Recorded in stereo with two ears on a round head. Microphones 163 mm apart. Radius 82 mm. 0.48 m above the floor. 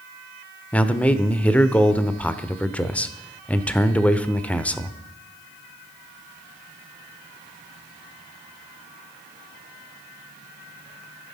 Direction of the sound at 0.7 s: 5° left (ahead or behind).